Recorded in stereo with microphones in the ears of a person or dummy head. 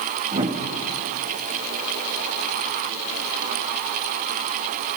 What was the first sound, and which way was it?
A whoosh, 40° right (ahead or behind).